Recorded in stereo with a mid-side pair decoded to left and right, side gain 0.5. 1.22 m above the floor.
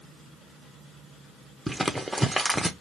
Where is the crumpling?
5° right, 0.7 m.